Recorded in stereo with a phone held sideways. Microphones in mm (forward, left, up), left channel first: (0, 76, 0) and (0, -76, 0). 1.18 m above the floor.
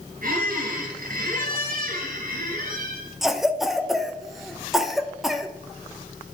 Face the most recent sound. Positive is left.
turn(degrees=0)  # may be behind; listen again after turning